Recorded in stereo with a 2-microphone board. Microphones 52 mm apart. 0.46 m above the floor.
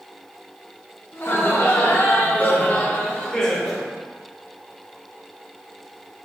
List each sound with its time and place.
1.1 s laughter: 65° left (ahead or behind), 1.7 m; by 3.9 s centre (ahead or behind), 1.2 m